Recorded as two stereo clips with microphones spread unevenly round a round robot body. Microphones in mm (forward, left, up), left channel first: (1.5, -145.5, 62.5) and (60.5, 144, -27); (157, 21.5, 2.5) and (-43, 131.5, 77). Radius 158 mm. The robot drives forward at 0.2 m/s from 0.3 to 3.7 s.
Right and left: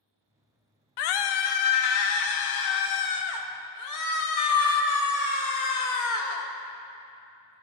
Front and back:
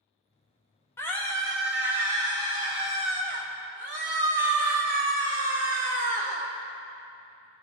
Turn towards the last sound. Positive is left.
turn(degrees=-140)